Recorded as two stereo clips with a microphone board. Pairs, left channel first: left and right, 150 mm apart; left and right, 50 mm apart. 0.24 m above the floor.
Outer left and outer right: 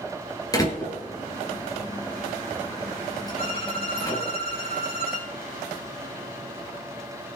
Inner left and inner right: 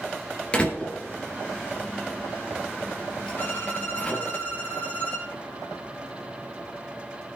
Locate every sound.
0.5 s a door slam: 25° left (ahead or behind), 3.5 m
3.4 s a violin: 35° left (ahead or behind), 6 m